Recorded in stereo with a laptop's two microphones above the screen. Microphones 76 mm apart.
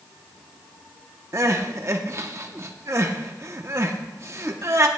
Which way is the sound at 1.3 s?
45° right (ahead or behind).